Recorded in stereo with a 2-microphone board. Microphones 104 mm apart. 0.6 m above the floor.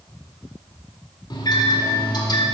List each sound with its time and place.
1.3 s a microwave: 45° left (ahead or behind), 1.9 m